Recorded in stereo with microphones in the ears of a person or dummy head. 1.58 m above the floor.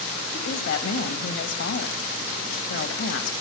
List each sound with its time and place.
0.3 s a woman speaking: 75° left (ahead or behind), 1.6 m